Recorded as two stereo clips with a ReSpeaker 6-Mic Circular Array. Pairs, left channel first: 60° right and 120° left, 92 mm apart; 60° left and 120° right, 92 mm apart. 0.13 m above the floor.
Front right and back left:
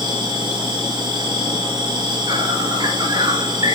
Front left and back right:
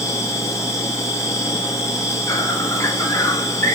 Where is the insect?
110° left, 1.9 m.